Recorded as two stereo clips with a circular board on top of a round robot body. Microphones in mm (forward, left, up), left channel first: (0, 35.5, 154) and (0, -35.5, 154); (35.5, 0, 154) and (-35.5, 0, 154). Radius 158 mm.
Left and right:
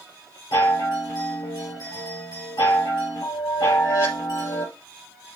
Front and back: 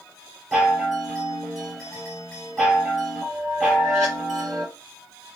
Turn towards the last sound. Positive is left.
turn(degrees=90)